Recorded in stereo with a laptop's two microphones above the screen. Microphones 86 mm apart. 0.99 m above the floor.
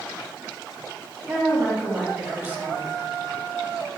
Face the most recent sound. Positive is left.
turn(degrees=-20)  # may be behind; listen again after turning